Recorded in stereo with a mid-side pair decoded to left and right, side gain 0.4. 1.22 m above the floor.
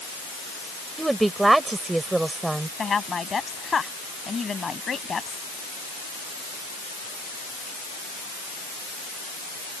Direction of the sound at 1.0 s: 20° right.